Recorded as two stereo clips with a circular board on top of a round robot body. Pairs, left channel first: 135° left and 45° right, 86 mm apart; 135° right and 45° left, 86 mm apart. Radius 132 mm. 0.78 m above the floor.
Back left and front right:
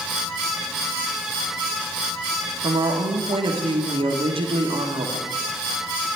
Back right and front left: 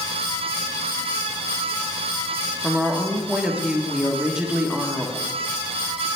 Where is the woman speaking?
35° right, 1.5 m.